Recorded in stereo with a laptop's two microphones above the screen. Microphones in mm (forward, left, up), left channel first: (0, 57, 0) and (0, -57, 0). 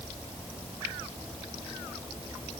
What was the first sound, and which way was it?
Only background noise.